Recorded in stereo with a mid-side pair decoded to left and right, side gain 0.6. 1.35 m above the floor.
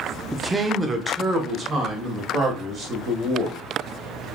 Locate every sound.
0.3 s a man speaking: 5° right, 0.6 m; by 3.6 s 35° right, 3 m